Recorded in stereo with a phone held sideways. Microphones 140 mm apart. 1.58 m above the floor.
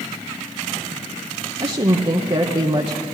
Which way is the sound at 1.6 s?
40° right (ahead or behind).